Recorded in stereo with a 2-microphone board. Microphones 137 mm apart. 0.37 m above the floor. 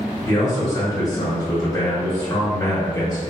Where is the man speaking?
25° left (ahead or behind), 1.1 m.